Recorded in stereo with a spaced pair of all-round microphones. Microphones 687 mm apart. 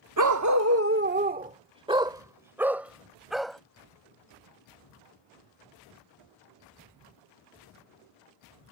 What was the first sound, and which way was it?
A dog barking, 30° right (ahead or behind).